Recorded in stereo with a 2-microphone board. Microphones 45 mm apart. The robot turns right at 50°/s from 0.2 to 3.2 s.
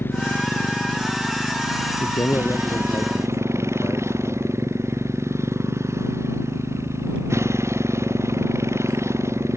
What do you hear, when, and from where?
0.0 s a motorcycle: 50° left (ahead or behind); by 9.6 s 85° right
2.0 s a man speaking: 55° left; by 4.6 s 115° left